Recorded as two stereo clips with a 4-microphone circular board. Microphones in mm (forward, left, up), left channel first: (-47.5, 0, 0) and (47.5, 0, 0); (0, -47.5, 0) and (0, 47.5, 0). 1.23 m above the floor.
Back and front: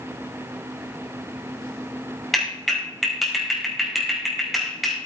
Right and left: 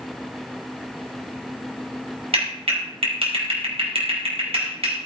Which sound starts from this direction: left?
A clap, at 2.3 s.